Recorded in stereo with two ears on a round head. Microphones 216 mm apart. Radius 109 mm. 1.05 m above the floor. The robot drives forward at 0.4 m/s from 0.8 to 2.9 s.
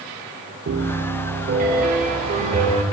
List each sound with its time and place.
0.7 s a piano: 50° right (ahead or behind), 1.2 m; by 2.8 s 30° right (ahead or behind), 1.8 m